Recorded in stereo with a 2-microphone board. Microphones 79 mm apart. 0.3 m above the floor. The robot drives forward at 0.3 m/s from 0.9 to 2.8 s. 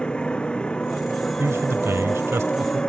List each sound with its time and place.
0.0 s a motorcycle: 15° left (ahead or behind)
1.4 s a man speaking: 35° right (ahead or behind)